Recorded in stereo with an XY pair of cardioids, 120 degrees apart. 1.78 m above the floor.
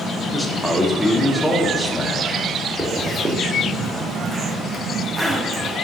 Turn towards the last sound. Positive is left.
turn(degrees=-10)